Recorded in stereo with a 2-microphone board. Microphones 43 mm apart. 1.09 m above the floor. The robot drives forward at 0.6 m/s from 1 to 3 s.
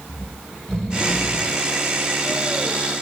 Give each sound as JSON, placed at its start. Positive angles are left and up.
{"t": 0.1, "sound": "snoring", "side_deg": 15, "distance_m": 1.4}